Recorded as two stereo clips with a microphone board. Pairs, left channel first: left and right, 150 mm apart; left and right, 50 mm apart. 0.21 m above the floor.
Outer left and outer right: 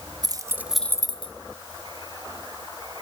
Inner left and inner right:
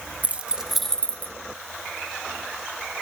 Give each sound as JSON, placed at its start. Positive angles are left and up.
{"t": 0.2, "sound": "keys jangling", "side_deg": -30, "distance_m": 1.1}